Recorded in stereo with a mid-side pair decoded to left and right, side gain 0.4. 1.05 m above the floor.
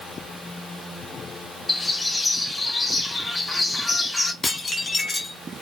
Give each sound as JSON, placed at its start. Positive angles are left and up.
{"t": 1.7, "sound": "a bird", "azimuth_deg": 20, "distance_m": 2.5}
{"t": 4.4, "sound": "dishes clattering", "azimuth_deg": 30, "distance_m": 1.5}